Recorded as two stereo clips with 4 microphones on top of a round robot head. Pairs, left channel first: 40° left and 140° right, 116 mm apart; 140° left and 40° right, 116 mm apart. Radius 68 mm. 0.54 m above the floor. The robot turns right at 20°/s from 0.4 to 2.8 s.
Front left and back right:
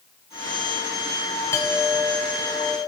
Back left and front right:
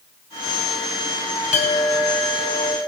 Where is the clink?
110° left, 1.9 m; by 2.8 s 135° left, 1.9 m.